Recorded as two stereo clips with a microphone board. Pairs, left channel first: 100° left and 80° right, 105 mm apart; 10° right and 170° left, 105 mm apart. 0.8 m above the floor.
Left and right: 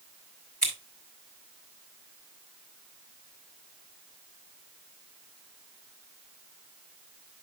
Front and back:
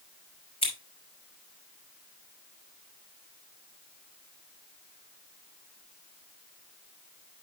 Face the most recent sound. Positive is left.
turn(degrees=15)